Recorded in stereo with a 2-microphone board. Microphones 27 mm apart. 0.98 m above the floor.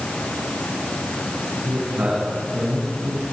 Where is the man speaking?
90° right, 7.5 m; by 3.2 s 85° right, 7 m.